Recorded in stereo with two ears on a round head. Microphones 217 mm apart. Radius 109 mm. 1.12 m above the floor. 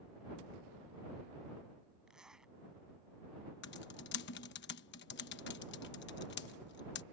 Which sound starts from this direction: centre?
A zipper, at 2.1 s.